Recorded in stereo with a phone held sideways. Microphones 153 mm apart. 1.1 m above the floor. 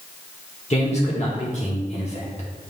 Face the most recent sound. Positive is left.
turn(degrees=45)  # may be behind; listen again after turning